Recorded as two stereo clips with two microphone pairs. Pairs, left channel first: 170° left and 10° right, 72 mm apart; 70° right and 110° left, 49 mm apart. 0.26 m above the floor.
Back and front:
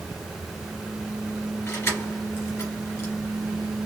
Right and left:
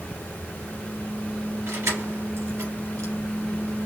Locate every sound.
1.7 s keys jangling: 120° left, 2.5 m